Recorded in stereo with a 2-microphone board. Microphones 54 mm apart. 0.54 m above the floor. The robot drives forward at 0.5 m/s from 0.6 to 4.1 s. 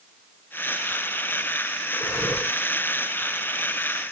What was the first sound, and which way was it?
Breathing, 55° left (ahead or behind).